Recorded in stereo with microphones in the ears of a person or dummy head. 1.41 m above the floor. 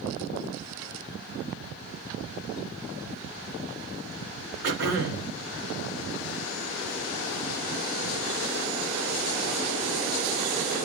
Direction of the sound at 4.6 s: 65° right (ahead or behind).